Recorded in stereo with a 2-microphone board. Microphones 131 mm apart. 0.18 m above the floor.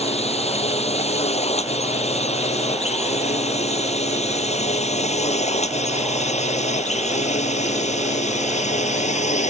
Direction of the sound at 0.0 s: 50° left (ahead or behind).